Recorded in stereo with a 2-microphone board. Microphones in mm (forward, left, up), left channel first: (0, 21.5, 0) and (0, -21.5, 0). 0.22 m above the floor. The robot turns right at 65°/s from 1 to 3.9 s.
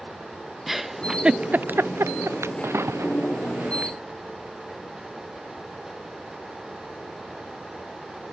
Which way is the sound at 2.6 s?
65° right (ahead or behind).